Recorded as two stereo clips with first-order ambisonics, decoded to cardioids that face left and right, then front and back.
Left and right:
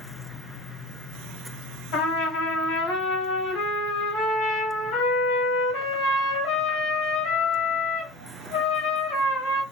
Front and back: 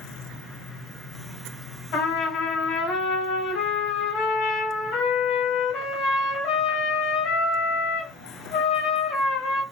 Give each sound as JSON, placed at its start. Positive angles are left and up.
{"t": 1.9, "sound": "a trumpet", "azimuth_deg": 50, "distance_m": 1.1}